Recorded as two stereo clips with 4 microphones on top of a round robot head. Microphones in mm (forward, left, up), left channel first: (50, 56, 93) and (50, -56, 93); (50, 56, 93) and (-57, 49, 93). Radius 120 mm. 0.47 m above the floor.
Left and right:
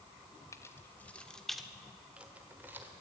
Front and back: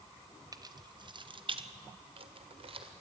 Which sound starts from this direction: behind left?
Keys jangling, at 0.5 s.